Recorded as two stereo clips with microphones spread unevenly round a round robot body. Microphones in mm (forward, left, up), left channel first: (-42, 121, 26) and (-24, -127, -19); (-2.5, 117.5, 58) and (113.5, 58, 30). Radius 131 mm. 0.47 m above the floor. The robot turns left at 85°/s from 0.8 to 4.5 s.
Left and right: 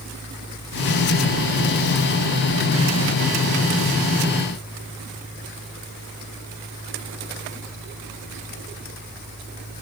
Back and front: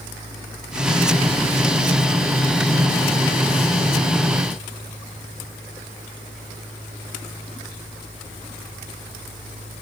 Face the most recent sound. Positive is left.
No sound to turn to.